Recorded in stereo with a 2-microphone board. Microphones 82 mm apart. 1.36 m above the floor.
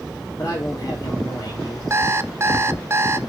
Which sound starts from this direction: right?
An alarm clock, at 1.9 s.